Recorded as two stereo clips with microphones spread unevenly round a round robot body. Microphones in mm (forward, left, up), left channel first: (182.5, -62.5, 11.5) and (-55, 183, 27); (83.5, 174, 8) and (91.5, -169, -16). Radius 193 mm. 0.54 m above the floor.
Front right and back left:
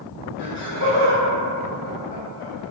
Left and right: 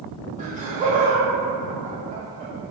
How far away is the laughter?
About 1.4 m.